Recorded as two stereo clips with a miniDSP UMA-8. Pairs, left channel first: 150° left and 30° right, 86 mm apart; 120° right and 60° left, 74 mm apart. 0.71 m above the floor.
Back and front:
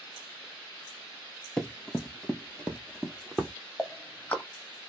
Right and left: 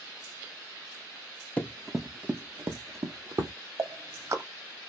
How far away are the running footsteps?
About 0.7 m.